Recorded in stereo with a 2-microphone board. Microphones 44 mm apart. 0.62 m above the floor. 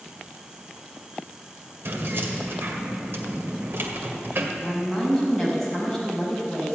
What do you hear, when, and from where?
1.9 s keys jangling: 60° right (ahead or behind), 1.8 m
4.6 s a woman speaking: 5° left (ahead or behind), 5 m